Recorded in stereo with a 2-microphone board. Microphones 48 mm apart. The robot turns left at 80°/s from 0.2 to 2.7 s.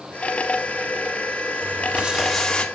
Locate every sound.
1.6 s crumpling: 120° right, 2.5 m; by 2.7 s 155° left, 2.5 m